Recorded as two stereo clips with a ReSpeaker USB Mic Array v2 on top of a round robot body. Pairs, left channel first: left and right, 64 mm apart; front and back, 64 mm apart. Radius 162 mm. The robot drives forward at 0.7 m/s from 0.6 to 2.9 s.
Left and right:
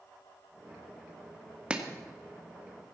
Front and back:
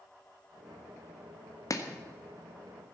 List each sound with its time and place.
1.7 s chopping: 15° right, 2 m